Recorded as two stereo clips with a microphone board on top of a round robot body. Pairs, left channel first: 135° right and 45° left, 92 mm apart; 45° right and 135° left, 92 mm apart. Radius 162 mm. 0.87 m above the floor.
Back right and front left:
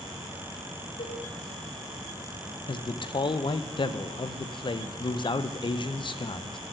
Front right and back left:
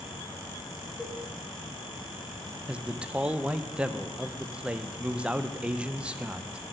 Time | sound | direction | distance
1.0 | a cowbell | 135° right | 2.5 m
2.7 | a man speaking | 150° right | 0.6 m